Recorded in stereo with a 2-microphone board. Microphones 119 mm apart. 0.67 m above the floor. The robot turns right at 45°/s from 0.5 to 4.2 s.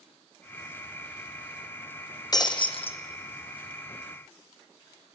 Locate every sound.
2.3 s breaking glass: 35° left (ahead or behind), 1.4 m; by 3.0 s 55° left (ahead or behind), 1.4 m